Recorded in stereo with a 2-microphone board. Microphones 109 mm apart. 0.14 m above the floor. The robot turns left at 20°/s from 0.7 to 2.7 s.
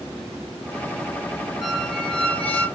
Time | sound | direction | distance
1.6 | a squeak | centre (ahead or behind) | 2.5 m